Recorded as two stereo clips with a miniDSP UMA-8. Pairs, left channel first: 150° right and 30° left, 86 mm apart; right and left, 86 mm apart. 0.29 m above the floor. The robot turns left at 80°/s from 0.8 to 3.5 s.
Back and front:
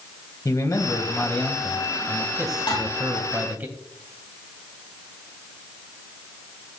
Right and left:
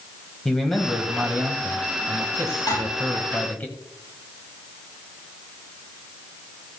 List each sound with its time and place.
0.5 s a man speaking: 170° right, 1.7 m; by 3.7 s 30° right, 1.7 m
2.7 s dishes clattering: 130° right, 6 m; by 2.9 s 145° right, 6 m